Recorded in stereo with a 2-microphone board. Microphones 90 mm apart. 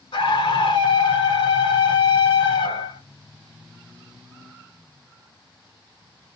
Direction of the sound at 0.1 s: 70° left (ahead or behind).